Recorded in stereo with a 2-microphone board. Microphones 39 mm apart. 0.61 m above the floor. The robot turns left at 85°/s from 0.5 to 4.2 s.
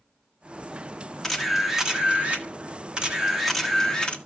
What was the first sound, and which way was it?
A camera shutter, 15° left.